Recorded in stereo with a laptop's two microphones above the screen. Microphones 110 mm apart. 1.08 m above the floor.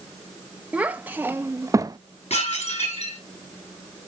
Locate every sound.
0.7 s a child speaking: 15° right (ahead or behind), 1.5 m; by 2.0 s 40° right (ahead or behind), 0.8 m
2.3 s dishes clattering: 90° left, 6.5 m